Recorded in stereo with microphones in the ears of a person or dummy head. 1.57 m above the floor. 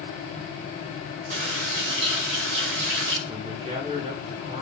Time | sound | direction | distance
1.3 | a running tap | 60° right (ahead or behind) | 1.9 m
3.3 | a man speaking | 35° right (ahead or behind) | 2 m